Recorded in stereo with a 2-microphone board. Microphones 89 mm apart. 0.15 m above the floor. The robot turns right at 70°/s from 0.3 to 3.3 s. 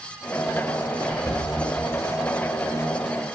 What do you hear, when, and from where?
1.0 s whispering: 15° left (ahead or behind), 2 m; by 1.4 s 10° right (ahead or behind), 2 m